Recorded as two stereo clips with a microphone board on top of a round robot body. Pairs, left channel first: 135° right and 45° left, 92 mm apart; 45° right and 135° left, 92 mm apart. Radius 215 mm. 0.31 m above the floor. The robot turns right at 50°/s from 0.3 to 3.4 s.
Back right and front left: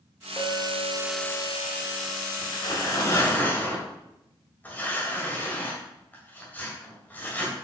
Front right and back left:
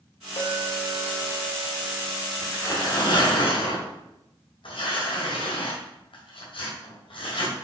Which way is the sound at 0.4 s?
80° right.